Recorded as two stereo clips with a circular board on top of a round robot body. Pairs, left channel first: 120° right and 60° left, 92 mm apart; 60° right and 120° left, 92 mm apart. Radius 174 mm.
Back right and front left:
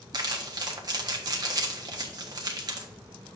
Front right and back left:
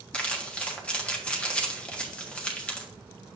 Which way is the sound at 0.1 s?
15° left.